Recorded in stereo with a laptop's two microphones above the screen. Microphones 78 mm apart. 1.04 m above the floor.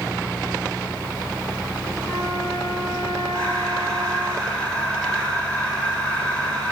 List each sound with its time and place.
2.0 s a flute: 5° left (ahead or behind), 8 m
3.3 s breathing: 15° left (ahead or behind), 4.5 m